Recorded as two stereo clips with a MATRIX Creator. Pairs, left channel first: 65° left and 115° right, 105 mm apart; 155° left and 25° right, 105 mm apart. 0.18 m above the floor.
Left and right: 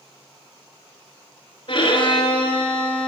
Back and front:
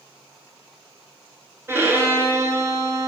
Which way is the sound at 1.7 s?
40° left.